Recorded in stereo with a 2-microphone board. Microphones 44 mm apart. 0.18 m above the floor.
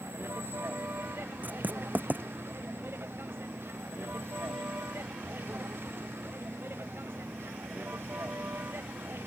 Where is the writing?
45° right (ahead or behind).